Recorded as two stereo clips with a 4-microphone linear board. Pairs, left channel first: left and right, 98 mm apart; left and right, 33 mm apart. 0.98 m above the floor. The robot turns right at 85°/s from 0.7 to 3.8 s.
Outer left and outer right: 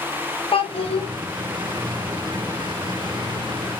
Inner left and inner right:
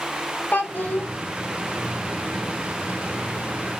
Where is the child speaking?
60° left, 0.6 m; by 1.1 s 95° left, 0.6 m.